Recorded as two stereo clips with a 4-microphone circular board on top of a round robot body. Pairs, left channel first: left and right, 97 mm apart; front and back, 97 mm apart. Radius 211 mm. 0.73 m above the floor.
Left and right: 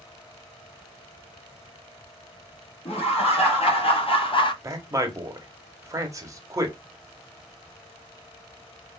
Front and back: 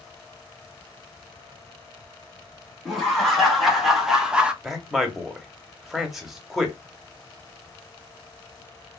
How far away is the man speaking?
About 1.1 m.